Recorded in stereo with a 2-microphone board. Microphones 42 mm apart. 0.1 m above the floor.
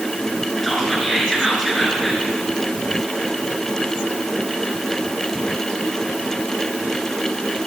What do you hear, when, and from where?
0.6 s whispering: centre (ahead or behind), 1.4 m